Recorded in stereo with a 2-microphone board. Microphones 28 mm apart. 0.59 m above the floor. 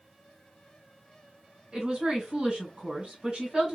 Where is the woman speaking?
35° right (ahead or behind), 2 m.